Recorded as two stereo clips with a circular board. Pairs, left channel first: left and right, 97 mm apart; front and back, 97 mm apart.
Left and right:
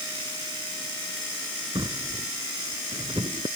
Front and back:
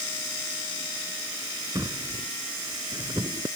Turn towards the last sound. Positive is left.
turn(degrees=-125)